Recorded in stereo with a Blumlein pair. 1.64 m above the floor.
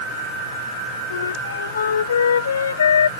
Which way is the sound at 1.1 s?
70° left.